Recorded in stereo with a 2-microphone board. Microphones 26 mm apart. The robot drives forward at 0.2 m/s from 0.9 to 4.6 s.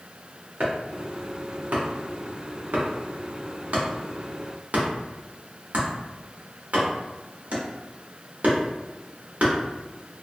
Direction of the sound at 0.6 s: 70° right (ahead or behind).